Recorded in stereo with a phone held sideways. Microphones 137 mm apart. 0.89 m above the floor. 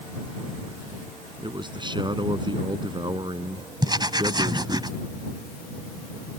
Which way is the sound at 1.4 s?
35° right (ahead or behind).